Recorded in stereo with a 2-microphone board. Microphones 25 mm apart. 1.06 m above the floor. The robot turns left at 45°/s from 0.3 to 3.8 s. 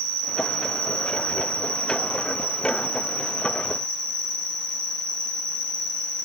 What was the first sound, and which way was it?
An insect, 150° right.